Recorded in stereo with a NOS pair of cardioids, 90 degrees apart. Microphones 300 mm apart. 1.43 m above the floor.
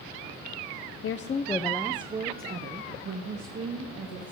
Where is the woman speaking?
50° left, 0.8 m; by 4.3 s 55° right, 2.5 m.